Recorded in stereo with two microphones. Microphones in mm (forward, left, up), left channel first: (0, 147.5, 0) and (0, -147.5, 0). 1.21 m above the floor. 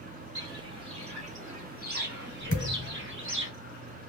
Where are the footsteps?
10° right (ahead or behind), 1.7 m; by 3.5 s 40° right (ahead or behind), 1.8 m.